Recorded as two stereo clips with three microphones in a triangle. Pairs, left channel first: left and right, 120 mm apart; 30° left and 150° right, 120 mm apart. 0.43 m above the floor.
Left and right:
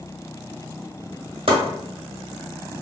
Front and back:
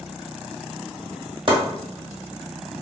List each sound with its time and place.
1.5 s chopping: 115° right, 1.2 m